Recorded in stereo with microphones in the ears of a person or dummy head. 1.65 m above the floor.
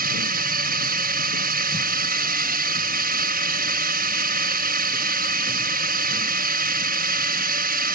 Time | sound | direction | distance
0.0 | a drone | 55° right (ahead or behind) | ?